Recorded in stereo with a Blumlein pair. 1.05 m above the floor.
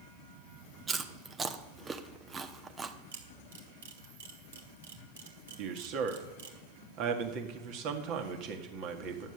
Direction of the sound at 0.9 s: 15° right.